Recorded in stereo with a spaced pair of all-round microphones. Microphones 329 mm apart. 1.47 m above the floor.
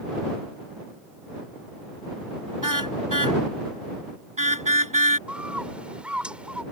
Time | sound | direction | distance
2.6 | a car horn | 65° right (ahead or behind) | ?
5.3 | a bird | 5° right (ahead or behind) | ?